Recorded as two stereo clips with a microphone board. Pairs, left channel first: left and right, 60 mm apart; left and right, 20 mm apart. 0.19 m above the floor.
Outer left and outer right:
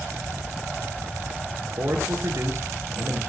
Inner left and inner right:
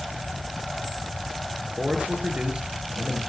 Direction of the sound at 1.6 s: 60° right (ahead or behind).